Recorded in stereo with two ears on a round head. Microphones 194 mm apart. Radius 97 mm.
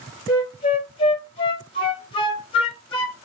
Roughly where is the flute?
Left.